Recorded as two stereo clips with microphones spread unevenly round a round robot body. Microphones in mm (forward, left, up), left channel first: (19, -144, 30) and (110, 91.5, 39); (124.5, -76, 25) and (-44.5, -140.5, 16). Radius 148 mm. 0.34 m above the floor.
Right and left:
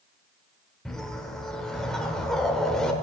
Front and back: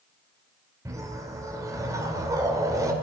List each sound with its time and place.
0.8 s a whoosh: 170° left, 1.0 m